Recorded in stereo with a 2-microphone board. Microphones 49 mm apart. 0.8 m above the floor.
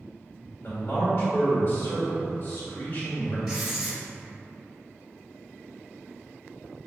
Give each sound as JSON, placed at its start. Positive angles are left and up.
{"t": 0.6, "sound": "a man speaking", "side_deg": 40, "distance_m": 1.3}
{"t": 3.5, "sound": "writing", "side_deg": -5, "distance_m": 1.2}